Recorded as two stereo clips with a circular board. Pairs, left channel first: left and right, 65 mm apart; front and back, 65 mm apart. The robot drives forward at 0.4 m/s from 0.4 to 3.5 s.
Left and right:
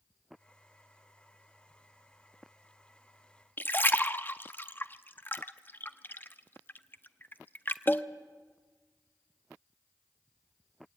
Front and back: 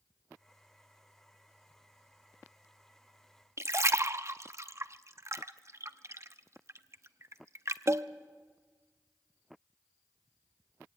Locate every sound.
3.6 s a splash: 145° left, 0.6 m